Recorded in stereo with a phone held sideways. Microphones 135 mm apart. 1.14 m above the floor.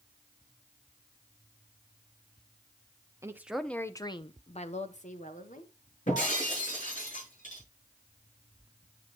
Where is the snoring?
I don't hear snoring.